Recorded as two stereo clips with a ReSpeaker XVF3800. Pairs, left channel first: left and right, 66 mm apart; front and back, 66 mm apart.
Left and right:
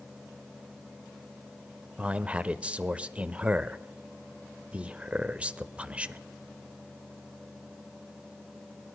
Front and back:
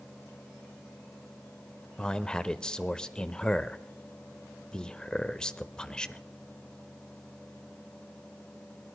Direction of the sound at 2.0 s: 60° right.